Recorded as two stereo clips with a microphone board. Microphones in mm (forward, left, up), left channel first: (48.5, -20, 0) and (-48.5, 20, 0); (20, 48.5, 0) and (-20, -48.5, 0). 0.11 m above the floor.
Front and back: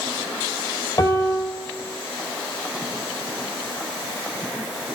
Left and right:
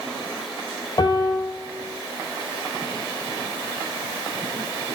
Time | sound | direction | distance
1.0 | a piano | 25° left | 3 m